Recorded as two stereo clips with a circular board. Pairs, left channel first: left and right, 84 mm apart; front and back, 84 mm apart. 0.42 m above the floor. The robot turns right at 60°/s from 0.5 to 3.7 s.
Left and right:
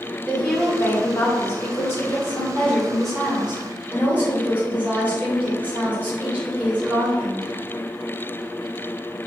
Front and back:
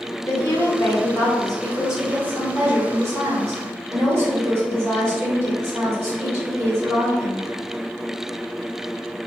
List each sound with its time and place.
0.3 s a woman speaking: 20° left, 1.3 m; by 7.4 s 145° right, 1.3 m